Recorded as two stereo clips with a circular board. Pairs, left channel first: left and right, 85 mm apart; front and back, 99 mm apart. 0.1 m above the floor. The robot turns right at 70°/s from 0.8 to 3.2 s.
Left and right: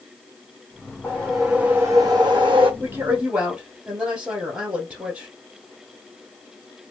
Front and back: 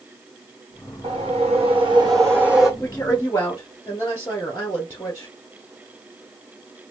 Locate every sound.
1.0 s a whoosh: 155° left, 1.2 m; by 2.7 s 90° right, 1.2 m
2.8 s a woman speaking: 65° right, 1.4 m; by 5.3 s 35° right, 1.4 m